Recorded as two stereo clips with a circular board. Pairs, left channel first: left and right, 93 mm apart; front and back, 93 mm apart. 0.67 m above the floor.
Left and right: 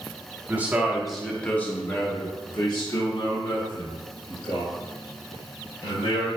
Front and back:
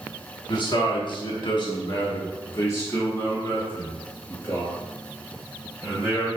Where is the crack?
No crack in this recording.